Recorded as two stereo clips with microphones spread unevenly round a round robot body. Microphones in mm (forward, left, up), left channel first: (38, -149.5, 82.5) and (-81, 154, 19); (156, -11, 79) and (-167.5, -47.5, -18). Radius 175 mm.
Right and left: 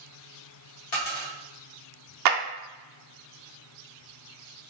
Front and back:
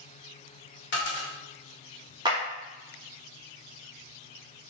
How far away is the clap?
About 0.6 m.